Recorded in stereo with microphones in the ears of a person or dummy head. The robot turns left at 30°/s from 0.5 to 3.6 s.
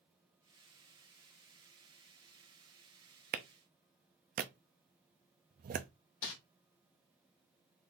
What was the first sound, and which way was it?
A clap, 55° right (ahead or behind).